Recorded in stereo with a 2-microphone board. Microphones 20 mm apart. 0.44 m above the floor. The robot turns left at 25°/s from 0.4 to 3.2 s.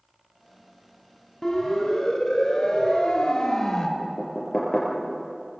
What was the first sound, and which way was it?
A siren, 20° left (ahead or behind).